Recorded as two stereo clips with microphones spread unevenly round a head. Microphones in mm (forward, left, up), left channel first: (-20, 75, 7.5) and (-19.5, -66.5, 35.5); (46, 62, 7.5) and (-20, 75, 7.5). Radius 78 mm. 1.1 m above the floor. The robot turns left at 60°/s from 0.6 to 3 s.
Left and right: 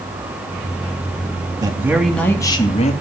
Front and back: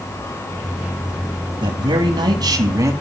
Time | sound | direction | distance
1.6 | a man speaking | 155° right | 2.5 m